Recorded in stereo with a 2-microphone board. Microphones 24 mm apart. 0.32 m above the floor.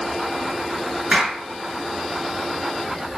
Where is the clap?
45° right (ahead or behind), 4.5 m.